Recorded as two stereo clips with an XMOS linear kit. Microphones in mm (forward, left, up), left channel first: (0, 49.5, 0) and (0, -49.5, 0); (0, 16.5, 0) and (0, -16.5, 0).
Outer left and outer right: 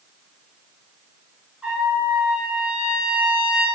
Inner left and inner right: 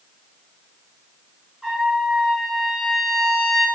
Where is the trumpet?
10° right (ahead or behind), 1.1 m.